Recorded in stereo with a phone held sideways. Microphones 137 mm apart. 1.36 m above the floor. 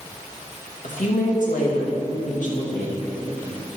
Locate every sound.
0.8 s a woman speaking: 70° left (ahead or behind), 2 m